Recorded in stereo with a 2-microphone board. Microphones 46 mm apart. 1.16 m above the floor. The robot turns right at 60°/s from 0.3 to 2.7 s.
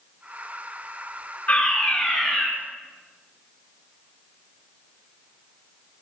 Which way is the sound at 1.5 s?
145° left.